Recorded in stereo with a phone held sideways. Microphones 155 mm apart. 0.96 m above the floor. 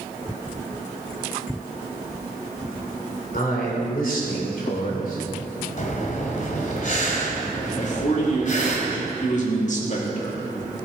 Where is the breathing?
55° left (ahead or behind), 2 m.